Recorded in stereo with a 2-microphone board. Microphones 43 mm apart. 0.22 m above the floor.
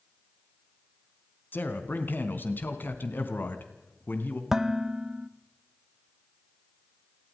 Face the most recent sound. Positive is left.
turn(degrees=-10)  # may be behind; listen again after turning